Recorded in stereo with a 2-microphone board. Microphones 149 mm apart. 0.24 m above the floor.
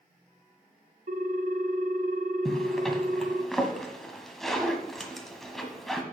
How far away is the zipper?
About 1.4 m.